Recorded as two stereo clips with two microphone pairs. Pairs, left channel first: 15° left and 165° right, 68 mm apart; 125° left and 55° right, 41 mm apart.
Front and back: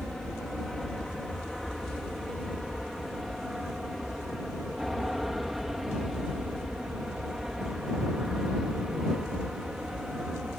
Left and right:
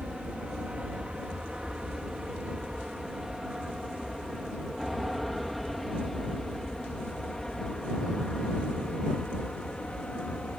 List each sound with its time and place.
0.0 s an aircraft: 65° right; by 10.6 s 125° left